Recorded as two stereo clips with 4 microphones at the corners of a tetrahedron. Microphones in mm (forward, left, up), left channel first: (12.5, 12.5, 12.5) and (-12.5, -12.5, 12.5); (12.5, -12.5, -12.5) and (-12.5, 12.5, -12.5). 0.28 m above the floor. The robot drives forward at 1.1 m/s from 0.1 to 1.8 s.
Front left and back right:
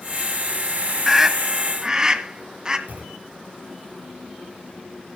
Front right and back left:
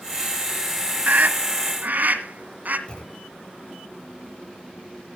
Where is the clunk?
105° right, 5 m.